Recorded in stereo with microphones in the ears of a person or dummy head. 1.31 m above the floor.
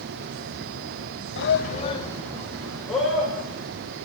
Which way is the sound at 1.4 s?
50° left (ahead or behind).